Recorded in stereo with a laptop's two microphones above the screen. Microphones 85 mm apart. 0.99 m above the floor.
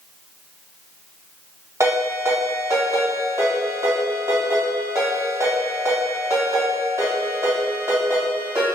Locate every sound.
1.8 s a ringtone: 40° right (ahead or behind), 1.6 m